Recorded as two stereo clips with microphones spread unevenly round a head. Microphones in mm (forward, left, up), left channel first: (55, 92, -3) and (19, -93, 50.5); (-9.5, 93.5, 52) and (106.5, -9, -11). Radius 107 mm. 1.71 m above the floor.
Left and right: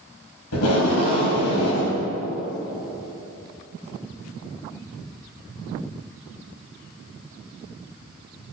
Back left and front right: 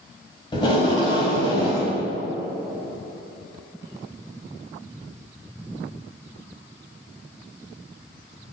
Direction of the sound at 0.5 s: 90° left.